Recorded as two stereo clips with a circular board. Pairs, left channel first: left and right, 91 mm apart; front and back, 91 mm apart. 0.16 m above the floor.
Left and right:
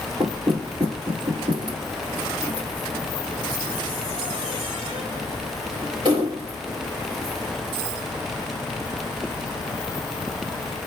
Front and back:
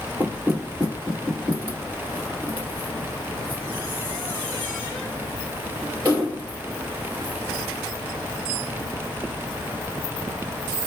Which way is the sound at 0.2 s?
110° right.